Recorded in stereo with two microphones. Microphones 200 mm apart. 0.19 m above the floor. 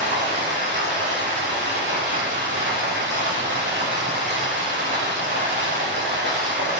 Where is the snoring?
No snoring in this recording.